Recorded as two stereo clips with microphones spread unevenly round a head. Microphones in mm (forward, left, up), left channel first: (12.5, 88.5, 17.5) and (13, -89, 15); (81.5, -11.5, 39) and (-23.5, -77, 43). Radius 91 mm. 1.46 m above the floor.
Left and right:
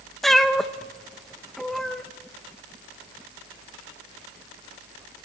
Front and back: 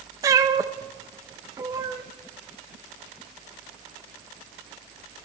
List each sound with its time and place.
0.2 s a cat meowing: 175° left, 0.6 m